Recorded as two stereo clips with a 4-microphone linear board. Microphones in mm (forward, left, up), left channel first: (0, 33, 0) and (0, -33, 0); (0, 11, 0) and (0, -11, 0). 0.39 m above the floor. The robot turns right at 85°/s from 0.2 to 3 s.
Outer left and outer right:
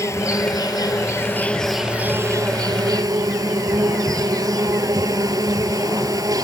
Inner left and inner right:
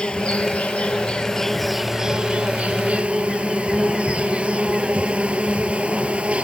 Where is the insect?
50° left; by 6.5 s 70° right.